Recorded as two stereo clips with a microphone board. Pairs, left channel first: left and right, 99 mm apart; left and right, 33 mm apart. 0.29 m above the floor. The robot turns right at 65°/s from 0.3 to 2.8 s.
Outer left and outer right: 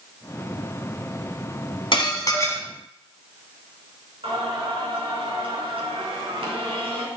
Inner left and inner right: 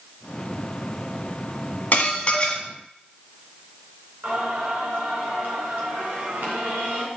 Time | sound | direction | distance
1.9 | dishes clattering | 110° left | 1.6 m
4.2 | singing | 70° right (ahead or behind) | 3.5 m